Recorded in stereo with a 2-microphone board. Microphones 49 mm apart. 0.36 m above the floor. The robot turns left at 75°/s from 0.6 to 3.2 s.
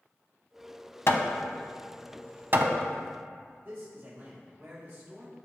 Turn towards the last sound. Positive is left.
turn(degrees=-40)  # may be behind; listen again after turning